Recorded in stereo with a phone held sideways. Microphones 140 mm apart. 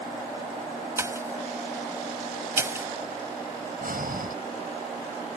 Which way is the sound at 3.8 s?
80° right.